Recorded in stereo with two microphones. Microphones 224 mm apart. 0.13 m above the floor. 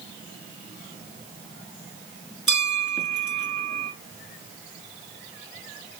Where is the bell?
Centre (ahead or behind), 1.5 m.